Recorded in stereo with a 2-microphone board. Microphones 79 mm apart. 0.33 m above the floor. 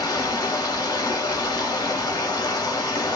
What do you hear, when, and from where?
0.0 s running water: 50° left (ahead or behind), 1.1 m